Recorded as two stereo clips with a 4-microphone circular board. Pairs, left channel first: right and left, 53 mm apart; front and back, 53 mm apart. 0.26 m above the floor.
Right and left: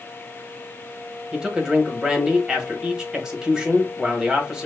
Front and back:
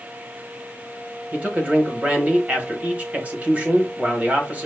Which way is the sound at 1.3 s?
155° left.